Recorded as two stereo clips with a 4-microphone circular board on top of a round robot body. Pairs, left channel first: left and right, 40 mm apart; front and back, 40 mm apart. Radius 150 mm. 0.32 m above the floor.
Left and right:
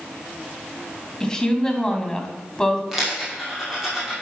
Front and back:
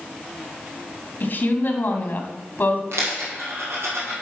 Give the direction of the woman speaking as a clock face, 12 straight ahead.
12 o'clock.